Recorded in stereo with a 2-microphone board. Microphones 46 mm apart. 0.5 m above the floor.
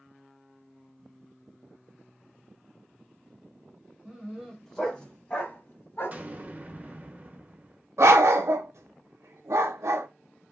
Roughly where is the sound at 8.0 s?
Right.